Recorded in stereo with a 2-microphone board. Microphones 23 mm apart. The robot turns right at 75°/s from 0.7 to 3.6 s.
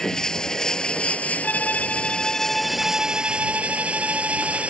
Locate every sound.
0.0 s running water: 25° left; by 4.7 s 120° right
1.4 s a violin: 90° left; by 4.7 s 105° right